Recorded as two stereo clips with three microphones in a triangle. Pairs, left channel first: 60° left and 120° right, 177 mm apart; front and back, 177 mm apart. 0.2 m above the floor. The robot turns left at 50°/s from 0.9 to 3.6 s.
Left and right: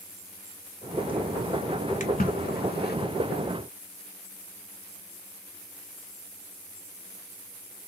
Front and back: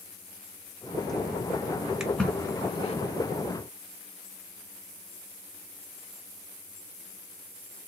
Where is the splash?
95° left, 0.8 m; by 3.0 s 45° left, 0.8 m.